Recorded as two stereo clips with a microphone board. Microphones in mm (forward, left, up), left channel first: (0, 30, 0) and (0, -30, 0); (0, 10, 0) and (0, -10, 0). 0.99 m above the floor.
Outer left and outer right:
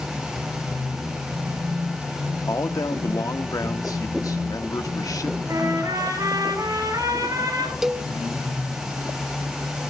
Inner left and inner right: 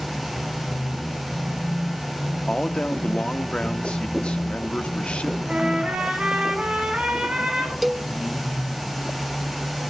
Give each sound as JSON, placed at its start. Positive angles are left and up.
{"t": 2.5, "sound": "a man speaking", "side_deg": 80, "distance_m": 1.7}
{"t": 5.5, "sound": "a trumpet", "side_deg": -75, "distance_m": 7.0}
{"t": 7.8, "sound": "a cowbell", "side_deg": -5, "distance_m": 0.6}